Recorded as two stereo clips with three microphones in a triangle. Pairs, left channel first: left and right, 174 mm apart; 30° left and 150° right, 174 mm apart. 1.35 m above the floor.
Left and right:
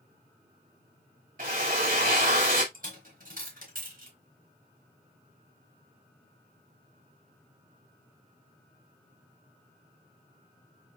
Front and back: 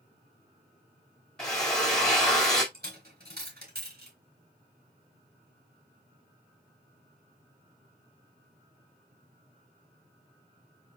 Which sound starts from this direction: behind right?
A dropped coin, at 2.7 s.